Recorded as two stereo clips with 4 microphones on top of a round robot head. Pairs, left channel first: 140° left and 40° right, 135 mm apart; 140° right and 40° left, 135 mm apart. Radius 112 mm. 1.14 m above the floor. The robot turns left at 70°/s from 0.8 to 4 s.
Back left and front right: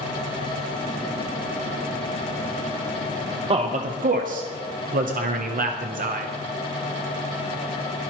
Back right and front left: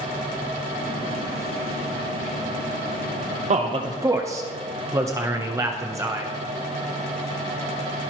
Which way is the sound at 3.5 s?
10° left.